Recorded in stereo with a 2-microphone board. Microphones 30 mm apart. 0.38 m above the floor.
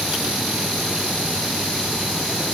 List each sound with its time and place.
Only background noise.